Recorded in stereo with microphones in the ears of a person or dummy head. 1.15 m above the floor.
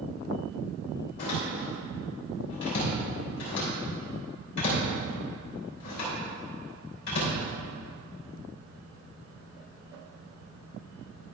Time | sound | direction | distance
1.2 | a door slam | 60° left (ahead or behind) | 3.5 m